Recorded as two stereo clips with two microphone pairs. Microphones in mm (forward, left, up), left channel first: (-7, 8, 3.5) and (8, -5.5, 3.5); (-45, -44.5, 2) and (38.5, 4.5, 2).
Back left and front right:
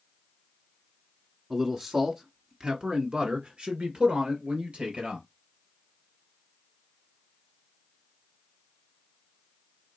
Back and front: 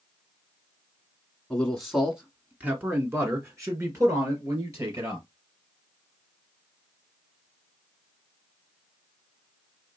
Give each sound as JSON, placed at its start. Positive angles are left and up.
{"t": 1.5, "sound": "a man speaking", "azimuth_deg": -80, "distance_m": 1.2}